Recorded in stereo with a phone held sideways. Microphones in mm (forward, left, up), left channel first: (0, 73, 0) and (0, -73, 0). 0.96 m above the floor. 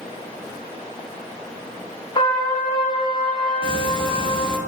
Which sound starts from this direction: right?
Ticking, at 3.6 s.